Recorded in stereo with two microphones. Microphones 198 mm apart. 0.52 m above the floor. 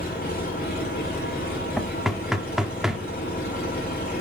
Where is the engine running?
55° left (ahead or behind), 4 m.